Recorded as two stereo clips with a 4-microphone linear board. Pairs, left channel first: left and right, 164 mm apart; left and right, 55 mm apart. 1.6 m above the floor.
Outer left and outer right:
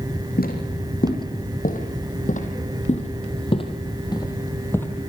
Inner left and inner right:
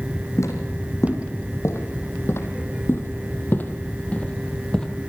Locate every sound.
0.4 s footsteps: 65° left (ahead or behind), 4 m; by 4.9 s 10° left (ahead or behind), 2.5 m